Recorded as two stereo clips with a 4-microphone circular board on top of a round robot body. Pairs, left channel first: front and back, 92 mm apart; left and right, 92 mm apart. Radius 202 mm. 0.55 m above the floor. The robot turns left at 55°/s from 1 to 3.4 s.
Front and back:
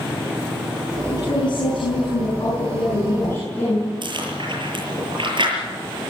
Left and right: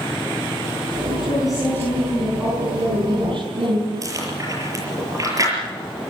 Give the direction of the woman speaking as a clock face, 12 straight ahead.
10 o'clock.